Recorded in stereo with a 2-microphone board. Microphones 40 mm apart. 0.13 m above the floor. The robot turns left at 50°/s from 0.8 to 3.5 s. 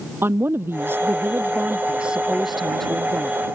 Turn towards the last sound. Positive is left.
turn(degrees=140)